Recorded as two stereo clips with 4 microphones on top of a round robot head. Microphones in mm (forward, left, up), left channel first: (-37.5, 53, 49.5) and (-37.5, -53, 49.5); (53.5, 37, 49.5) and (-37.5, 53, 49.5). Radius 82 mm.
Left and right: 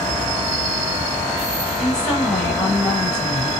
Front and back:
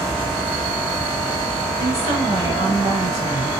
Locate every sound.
1.8 s a woman speaking: 170° left, 4.5 m